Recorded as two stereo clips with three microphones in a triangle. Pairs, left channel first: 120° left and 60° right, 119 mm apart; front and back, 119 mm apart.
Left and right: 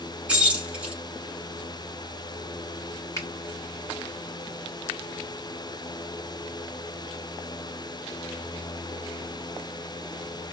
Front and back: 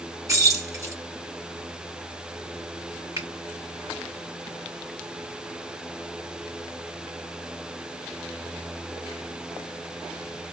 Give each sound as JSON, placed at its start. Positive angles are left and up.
{"t": 0.3, "sound": "keys jangling", "azimuth_deg": -135, "distance_m": 1.0}
{"t": 3.2, "sound": "a finger snap", "azimuth_deg": 150, "distance_m": 1.6}